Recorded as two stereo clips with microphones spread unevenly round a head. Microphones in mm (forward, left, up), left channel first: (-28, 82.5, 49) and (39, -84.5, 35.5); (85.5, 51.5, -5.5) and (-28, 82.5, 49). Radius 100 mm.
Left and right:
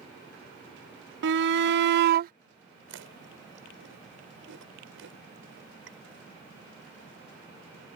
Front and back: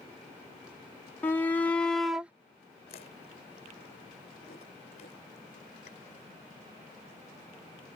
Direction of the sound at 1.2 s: 90° right.